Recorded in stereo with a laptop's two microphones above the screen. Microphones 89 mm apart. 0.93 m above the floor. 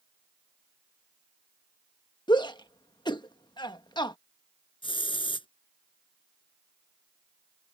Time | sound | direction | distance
2.3 | a shout | 60° left (ahead or behind) | ?
4.8 | a hiss | 75° left (ahead or behind) | ?